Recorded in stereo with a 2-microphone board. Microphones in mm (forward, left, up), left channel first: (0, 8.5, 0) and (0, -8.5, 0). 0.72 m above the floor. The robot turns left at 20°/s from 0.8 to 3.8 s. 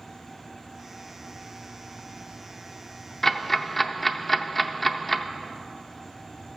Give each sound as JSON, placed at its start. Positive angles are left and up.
{"t": 3.2, "sound": "ticking", "side_deg": 35, "distance_m": 0.6}